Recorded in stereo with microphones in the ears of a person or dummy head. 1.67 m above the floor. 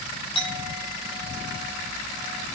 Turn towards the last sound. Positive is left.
turn(degrees=30)  # may be behind; listen again after turning